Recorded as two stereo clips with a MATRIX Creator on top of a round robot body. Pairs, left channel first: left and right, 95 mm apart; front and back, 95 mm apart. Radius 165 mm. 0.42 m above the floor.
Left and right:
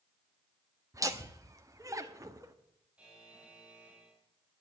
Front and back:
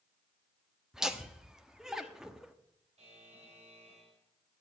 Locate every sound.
0.9 s laughter: 100° right, 1.3 m
3.0 s a buzzer: 170° right, 4 m